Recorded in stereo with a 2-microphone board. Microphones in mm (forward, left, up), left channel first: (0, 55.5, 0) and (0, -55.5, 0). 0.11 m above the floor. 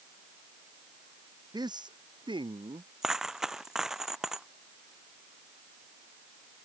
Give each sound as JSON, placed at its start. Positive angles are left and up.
{"t": 1.5, "sound": "a man speaking", "side_deg": -40}
{"t": 3.0, "sound": "a dropped coin", "side_deg": -5}